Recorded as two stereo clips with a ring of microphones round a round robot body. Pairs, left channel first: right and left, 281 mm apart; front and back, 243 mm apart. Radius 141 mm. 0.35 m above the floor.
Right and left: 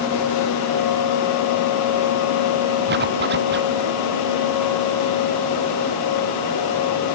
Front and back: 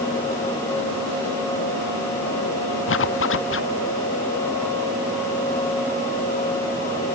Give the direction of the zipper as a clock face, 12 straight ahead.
11 o'clock.